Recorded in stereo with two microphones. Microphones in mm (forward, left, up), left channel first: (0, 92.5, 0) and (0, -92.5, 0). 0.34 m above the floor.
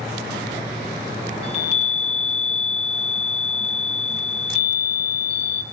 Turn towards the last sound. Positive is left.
turn(degrees=30)  # may be behind; listen again after turning